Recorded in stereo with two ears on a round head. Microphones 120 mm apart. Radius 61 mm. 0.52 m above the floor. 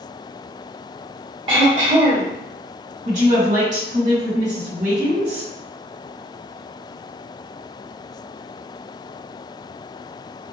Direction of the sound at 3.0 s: 60° right (ahead or behind).